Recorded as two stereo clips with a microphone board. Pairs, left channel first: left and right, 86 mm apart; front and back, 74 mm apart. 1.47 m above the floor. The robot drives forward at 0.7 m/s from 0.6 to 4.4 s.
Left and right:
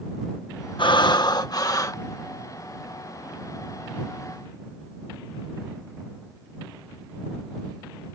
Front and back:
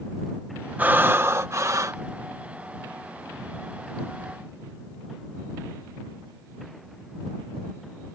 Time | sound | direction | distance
0.8 | breathing | 115° left | ?